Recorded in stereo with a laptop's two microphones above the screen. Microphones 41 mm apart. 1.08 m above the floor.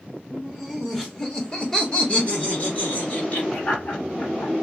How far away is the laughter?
About 1.5 m.